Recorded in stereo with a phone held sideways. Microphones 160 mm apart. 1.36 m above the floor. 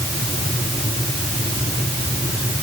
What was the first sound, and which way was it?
Only background noise.